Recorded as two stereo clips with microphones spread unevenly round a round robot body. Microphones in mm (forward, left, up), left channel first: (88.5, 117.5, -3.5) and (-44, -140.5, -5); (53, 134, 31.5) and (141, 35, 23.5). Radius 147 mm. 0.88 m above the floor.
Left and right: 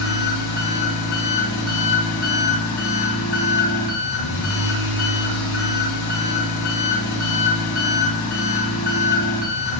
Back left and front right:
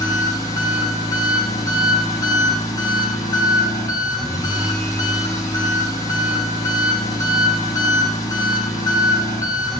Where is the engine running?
70° left, 2.5 m.